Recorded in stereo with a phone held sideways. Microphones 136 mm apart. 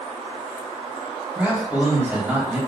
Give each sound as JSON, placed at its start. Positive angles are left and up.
{"t": 1.4, "sound": "a man speaking", "side_deg": -10, "distance_m": 3.5}